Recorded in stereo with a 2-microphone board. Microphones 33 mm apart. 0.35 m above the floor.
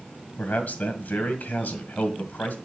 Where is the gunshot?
No gunshot in this recording.